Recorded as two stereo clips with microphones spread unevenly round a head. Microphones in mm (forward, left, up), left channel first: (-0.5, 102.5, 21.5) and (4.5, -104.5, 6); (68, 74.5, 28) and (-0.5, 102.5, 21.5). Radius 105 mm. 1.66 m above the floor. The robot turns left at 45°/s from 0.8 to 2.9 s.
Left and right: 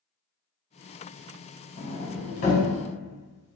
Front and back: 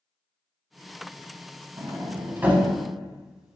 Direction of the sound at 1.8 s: 130° left.